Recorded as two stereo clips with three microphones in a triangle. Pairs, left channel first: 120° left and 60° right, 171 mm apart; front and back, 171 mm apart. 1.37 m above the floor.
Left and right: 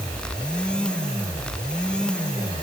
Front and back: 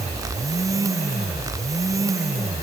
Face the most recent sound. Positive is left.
No sound to turn to.